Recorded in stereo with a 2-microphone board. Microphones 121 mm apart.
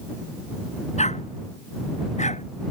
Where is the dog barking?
70° left (ahead or behind).